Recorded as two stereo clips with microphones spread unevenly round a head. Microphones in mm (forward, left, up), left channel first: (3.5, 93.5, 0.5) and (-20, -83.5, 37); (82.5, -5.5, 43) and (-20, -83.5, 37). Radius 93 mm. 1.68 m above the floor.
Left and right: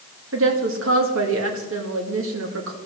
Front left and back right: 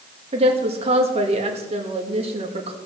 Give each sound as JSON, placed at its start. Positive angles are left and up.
{"t": 0.3, "sound": "a woman speaking", "azimuth_deg": -100, "distance_m": 2.0}